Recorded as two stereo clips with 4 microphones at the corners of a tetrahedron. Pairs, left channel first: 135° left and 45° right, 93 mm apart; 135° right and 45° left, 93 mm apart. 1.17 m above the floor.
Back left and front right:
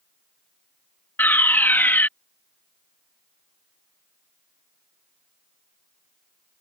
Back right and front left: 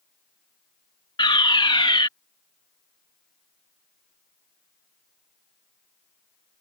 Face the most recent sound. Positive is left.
turn(degrees=-160)